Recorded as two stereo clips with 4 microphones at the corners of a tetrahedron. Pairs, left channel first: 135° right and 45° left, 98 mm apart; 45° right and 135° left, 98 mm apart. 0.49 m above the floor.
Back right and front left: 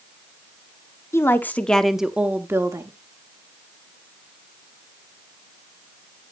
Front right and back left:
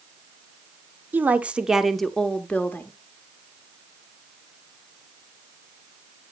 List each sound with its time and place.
1.1 s a woman speaking: 170° right, 0.8 m; by 2.9 s 10° left, 0.8 m